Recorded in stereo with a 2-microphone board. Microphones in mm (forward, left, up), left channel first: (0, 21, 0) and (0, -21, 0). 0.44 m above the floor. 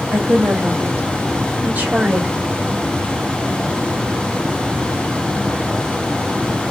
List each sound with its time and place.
0.1 s a woman speaking: 55° right (ahead or behind), 1.8 m; by 2.3 s 40° right (ahead or behind), 1.4 m